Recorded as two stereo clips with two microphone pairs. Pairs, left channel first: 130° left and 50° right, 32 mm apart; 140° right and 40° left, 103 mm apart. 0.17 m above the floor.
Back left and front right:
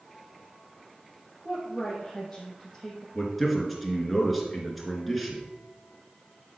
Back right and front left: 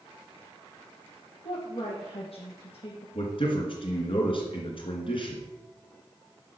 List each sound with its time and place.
1.4 s a woman speaking: 145° right, 3 m
3.1 s a man speaking: 140° right, 2.5 m